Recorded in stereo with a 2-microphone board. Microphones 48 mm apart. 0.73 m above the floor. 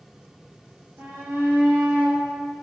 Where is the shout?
65° right (ahead or behind), 5 m; by 2.2 s 75° right (ahead or behind), 4 m.